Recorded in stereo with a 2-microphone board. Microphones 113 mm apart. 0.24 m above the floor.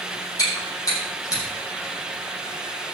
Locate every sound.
0.4 s chewing: 35° left (ahead or behind), 7.5 m